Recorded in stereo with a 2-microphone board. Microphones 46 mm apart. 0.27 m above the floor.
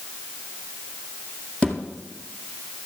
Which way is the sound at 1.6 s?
25° left (ahead or behind).